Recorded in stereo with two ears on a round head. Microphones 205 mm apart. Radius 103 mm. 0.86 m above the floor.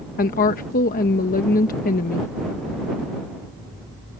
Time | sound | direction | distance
0.2 | a woman speaking | 40° left (ahead or behind) | ?